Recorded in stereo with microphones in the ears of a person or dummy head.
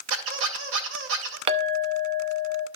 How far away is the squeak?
About 2 m.